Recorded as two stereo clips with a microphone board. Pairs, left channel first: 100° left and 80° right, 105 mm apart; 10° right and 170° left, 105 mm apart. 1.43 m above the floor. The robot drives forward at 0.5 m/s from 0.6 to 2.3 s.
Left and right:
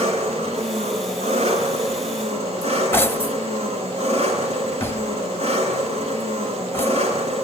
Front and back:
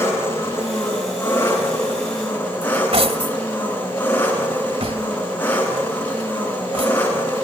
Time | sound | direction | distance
0.0 | an engine running | 75° right | 9 m
2.6 | cutlery clinking | 165° left | 1.4 m